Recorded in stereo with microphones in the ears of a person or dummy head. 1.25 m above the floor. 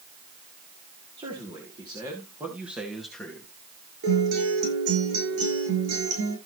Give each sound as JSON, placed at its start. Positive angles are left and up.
{"t": 1.2, "sound": "a man speaking", "side_deg": -25, "distance_m": 3.5}
{"t": 4.0, "sound": "a guitar", "side_deg": -85, "distance_m": 8.5}